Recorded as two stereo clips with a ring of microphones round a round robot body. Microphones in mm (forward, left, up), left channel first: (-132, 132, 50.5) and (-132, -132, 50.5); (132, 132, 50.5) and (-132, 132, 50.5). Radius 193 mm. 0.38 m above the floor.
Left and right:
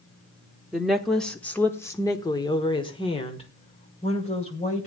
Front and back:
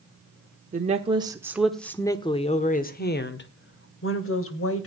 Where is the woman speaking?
175° right, 1.3 m; by 4.9 s 25° left, 2.5 m.